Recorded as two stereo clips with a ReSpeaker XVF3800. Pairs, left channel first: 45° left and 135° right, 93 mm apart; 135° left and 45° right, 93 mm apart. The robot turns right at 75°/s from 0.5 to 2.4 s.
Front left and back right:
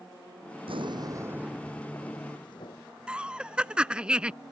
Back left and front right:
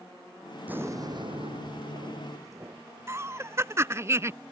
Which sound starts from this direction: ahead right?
Laughter, at 3.1 s.